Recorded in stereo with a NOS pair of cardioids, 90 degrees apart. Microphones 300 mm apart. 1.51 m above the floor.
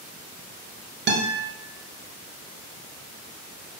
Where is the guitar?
35° right, 0.9 m.